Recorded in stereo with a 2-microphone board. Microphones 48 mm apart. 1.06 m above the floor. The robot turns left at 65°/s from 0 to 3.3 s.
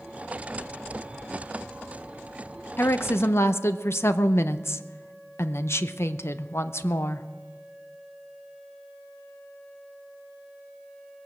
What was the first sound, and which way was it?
A woman speaking, 125° left.